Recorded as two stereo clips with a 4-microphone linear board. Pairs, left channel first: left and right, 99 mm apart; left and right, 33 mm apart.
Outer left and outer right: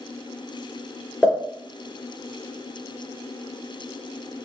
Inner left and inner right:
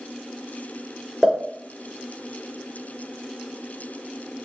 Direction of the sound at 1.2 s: 10° left (ahead or behind).